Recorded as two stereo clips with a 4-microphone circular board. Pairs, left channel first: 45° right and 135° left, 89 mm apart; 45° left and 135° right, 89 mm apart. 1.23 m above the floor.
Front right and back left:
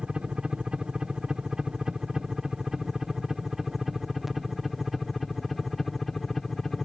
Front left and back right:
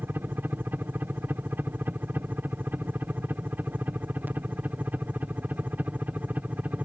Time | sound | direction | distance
0.0 | a helicopter | 160° right | ?